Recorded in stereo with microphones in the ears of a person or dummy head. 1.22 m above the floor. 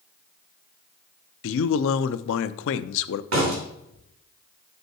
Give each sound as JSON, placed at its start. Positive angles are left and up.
{"t": 1.4, "sound": "a man speaking", "side_deg": 65, "distance_m": 0.6}
{"t": 3.3, "sound": "a door slam", "side_deg": -85, "distance_m": 3.0}